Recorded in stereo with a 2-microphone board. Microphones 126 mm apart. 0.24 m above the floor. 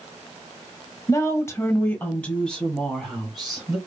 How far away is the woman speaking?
About 1.2 m.